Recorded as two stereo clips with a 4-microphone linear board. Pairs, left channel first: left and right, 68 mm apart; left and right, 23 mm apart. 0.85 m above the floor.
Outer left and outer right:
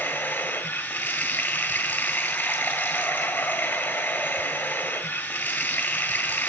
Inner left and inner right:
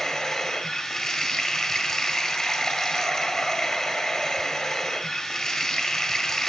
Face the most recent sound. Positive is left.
turn(degrees=25)  # may be behind; listen again after turning